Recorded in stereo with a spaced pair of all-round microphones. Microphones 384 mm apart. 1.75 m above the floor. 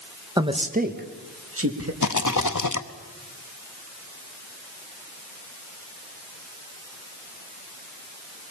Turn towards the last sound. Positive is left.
turn(degrees=50)  # may be behind; listen again after turning